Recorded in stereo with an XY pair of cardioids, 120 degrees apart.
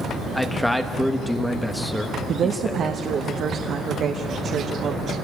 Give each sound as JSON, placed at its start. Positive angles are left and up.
{"t": 0.3, "sound": "a man speaking", "azimuth_deg": 5, "distance_m": 1.0}
{"t": 2.3, "sound": "a woman speaking", "azimuth_deg": -55, "distance_m": 1.2}